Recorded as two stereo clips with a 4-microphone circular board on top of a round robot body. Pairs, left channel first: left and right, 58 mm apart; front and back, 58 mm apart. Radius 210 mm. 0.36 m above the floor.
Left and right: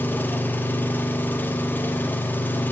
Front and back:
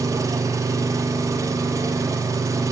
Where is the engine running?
150° left, 0.8 m.